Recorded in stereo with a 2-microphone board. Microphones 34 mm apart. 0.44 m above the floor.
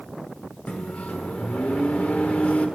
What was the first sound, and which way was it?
A microwave, 40° left (ahead or behind).